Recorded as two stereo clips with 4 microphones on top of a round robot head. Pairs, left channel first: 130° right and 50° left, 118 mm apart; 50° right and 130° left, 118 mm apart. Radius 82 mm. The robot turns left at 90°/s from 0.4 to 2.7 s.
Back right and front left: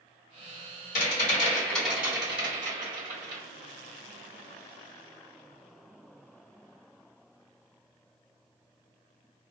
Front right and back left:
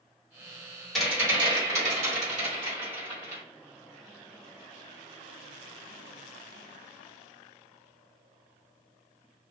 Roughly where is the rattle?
Behind right.